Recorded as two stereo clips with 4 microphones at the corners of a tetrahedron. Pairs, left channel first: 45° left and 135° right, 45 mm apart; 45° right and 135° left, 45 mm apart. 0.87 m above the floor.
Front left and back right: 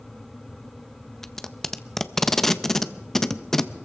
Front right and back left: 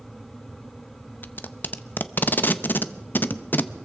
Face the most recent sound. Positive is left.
turn(degrees=-35)